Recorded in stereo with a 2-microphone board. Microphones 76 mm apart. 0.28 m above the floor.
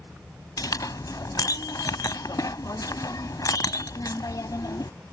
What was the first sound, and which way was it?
A clink, 55° left (ahead or behind).